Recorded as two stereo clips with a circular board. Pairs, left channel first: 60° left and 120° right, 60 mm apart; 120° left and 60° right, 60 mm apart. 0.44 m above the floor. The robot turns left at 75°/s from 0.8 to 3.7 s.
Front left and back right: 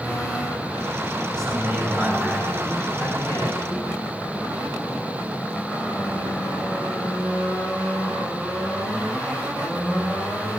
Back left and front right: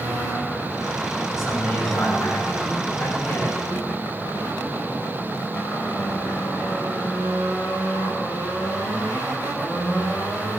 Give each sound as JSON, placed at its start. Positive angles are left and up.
{"t": 1.4, "sound": "a man speaking", "azimuth_deg": -150, "distance_m": 6.0}